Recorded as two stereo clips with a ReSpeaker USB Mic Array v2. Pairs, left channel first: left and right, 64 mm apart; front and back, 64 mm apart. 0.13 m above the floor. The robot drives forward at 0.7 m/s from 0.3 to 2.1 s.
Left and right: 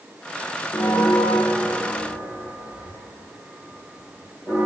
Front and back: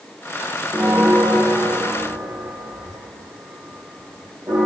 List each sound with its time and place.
0.7 s a bell: 105° left, 0.6 m; by 4.7 s 155° left, 1.2 m